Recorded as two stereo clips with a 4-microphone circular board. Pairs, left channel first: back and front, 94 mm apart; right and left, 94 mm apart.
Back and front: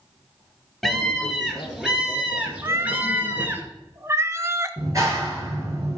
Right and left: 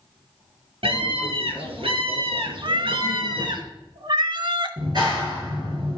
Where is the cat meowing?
60° left, 0.6 m.